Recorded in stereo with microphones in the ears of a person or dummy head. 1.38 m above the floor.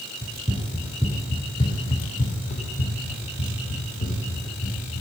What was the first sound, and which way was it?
Running footsteps, 25° right (ahead or behind).